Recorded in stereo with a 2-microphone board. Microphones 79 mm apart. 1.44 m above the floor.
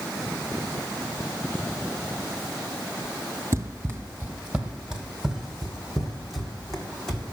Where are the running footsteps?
30° right (ahead or behind), 1.9 m; by 7.3 s 10° left (ahead or behind), 4 m.